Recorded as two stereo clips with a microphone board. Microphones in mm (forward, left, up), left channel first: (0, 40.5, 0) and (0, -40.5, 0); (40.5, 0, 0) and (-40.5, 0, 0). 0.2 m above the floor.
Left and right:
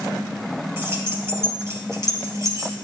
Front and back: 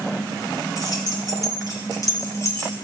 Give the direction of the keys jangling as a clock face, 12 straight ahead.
1 o'clock.